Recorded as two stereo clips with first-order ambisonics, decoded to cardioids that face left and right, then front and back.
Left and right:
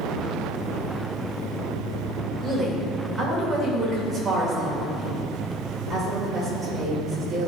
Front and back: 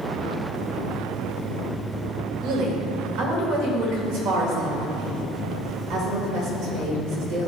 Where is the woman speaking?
170° right, 1.8 m.